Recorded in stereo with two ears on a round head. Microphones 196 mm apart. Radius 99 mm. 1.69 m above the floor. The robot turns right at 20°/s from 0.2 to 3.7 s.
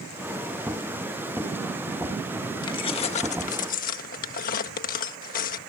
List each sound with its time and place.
2.6 s keys jangling: 20° left (ahead or behind); by 5.6 s 40° left (ahead or behind)